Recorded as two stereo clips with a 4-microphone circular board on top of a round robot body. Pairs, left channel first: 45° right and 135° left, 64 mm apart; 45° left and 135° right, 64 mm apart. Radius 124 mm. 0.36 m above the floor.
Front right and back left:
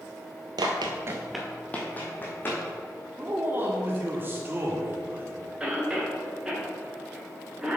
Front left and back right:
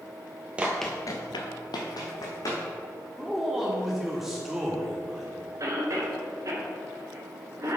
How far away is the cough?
About 2.5 m.